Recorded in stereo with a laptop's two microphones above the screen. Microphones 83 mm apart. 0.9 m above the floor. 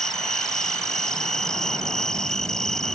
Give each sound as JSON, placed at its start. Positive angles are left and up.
{"t": 0.0, "sound": "an insect", "side_deg": 5}